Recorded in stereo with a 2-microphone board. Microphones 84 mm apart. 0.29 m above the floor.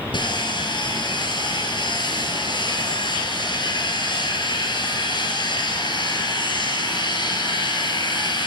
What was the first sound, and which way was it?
Sawing, 65° left (ahead or behind).